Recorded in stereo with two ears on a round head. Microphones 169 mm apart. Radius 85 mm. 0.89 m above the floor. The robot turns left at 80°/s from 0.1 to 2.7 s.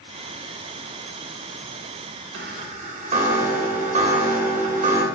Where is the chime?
70° right (ahead or behind), 1.3 m; by 5.0 s 45° right (ahead or behind), 1.3 m.